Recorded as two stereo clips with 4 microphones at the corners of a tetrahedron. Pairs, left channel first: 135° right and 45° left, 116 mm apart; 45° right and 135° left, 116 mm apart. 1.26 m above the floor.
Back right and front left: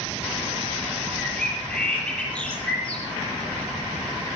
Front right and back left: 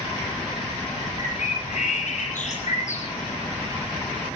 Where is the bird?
55° right, 9.5 m.